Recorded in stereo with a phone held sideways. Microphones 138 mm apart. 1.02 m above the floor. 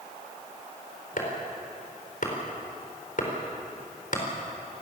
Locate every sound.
1.2 s chopping: 70° left (ahead or behind), 4.5 m